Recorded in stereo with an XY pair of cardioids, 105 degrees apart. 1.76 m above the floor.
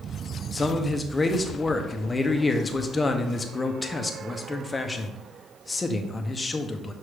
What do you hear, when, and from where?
0.5 s a man speaking: 20° left, 1.1 m